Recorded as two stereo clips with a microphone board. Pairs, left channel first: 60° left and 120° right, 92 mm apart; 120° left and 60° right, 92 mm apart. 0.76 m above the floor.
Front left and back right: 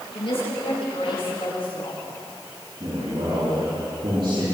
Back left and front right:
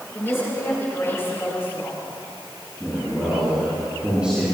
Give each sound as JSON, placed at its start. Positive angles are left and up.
{"t": 0.1, "sound": "a woman speaking", "azimuth_deg": 60, "distance_m": 8.5}
{"t": 2.8, "sound": "a man speaking", "azimuth_deg": -140, "distance_m": 9.5}